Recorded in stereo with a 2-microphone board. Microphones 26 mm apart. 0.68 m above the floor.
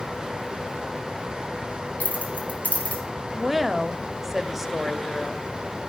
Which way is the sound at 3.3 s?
15° right (ahead or behind).